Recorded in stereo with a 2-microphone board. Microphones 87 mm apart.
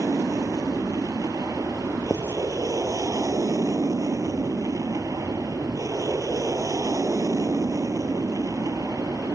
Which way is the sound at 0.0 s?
40° right (ahead or behind).